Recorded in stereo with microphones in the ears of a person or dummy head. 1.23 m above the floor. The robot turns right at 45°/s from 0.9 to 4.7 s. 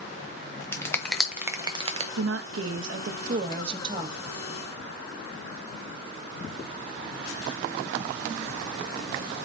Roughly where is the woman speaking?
Right.